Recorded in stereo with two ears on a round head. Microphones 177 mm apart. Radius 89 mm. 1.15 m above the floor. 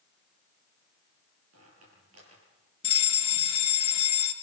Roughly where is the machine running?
No machine running in this recording.